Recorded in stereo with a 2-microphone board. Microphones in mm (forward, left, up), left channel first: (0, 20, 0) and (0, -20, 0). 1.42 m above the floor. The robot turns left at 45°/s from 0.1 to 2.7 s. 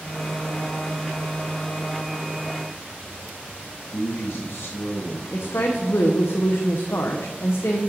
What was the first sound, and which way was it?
A man speaking, 65° left (ahead or behind).